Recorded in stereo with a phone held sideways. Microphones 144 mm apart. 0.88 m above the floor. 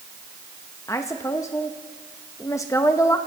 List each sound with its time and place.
0.9 s a woman speaking: 20° left (ahead or behind), 0.8 m